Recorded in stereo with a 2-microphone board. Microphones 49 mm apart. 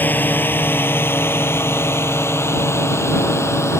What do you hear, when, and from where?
0.0 s a drone: 40° left (ahead or behind); by 3.8 s 65° left (ahead or behind)